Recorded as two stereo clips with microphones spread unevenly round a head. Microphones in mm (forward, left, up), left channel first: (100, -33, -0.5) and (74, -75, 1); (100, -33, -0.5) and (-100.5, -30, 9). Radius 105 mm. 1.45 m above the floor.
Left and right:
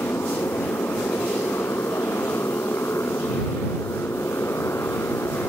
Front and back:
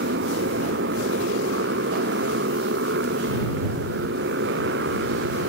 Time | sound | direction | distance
0.0 | a motorcycle | 135° left | ?